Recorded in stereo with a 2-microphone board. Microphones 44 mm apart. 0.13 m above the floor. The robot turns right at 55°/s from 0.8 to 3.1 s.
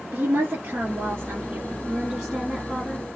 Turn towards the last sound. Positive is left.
turn(degrees=40)